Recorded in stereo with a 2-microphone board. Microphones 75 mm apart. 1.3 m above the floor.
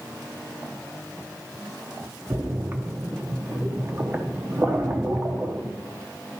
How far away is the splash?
About 0.8 m.